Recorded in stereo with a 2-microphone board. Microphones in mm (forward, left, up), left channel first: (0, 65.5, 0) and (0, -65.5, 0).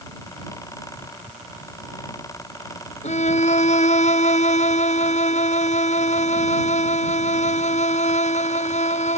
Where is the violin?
65° left (ahead or behind).